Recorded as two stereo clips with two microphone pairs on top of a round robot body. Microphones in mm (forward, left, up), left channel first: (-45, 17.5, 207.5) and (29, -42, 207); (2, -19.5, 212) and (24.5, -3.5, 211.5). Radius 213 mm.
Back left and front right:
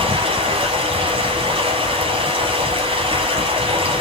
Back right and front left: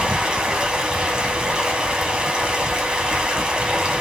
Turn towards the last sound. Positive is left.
turn(degrees=-15)